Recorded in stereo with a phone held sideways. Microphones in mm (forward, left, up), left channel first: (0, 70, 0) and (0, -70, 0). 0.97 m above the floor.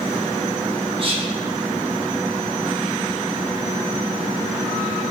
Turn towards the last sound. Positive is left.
turn(degrees=-40)  # may be behind; listen again after turning